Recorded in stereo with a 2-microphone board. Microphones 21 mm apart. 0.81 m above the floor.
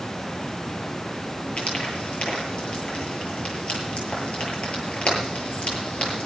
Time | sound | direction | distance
1.6 | frying | 55° left (ahead or behind) | 8.5 m